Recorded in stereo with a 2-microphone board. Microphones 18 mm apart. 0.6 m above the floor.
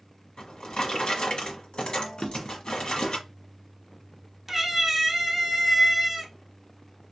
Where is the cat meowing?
Centre (ahead or behind), 0.7 m.